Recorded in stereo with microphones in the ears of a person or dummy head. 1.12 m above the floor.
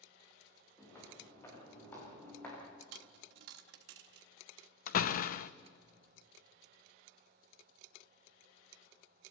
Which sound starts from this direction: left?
A door slam, at 4.9 s.